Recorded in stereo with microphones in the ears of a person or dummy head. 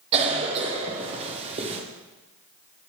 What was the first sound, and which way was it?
A cough, 30° right (ahead or behind).